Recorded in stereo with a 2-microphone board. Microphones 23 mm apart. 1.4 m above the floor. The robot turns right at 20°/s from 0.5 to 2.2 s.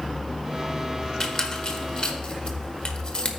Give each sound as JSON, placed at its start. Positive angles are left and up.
{"t": 1.2, "sound": "a squeak", "side_deg": 35, "distance_m": 1.2}